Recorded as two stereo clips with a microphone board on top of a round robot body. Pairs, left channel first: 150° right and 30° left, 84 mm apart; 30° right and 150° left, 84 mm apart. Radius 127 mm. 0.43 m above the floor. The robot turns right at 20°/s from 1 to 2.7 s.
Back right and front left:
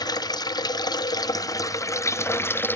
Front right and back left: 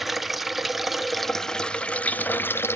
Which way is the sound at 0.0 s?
120° right.